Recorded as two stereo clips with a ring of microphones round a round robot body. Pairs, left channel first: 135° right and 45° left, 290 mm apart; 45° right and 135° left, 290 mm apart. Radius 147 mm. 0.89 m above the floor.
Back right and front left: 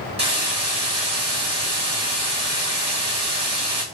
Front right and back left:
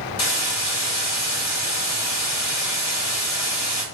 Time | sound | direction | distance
0.2 | a hiss | 25° right | 1.9 m